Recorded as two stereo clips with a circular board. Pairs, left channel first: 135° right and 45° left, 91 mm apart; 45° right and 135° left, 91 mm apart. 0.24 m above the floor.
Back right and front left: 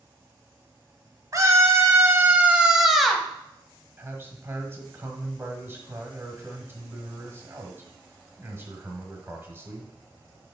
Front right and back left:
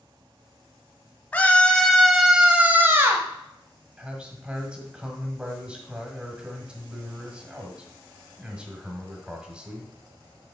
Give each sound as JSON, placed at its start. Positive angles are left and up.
{"t": 1.3, "sound": "a scream", "azimuth_deg": 20, "distance_m": 1.3}
{"t": 4.0, "sound": "a man speaking", "azimuth_deg": 70, "distance_m": 1.4}